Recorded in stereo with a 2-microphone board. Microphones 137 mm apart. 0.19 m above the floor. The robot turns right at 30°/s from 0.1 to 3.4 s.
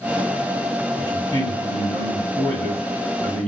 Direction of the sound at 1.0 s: 30° left (ahead or behind).